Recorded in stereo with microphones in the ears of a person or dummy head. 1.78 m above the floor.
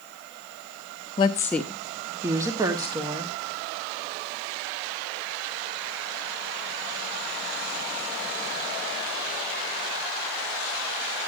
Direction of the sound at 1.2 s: 20° left (ahead or behind).